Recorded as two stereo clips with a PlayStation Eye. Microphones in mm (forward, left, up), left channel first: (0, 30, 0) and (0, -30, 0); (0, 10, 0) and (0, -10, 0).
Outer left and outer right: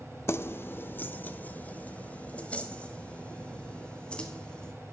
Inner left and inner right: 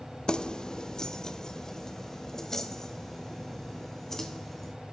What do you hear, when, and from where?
0.3 s keys jangling: 45° left (ahead or behind), 0.9 m; by 4.7 s 15° left (ahead or behind), 4 m